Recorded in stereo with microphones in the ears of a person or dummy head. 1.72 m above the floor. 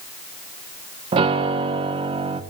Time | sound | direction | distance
1.1 | a piano | 30° right (ahead or behind) | 1.4 m